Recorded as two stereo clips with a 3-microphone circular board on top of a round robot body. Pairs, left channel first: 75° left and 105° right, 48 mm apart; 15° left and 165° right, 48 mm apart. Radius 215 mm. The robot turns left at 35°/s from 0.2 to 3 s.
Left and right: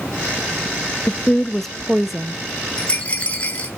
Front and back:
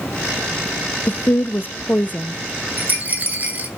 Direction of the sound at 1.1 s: 15° left.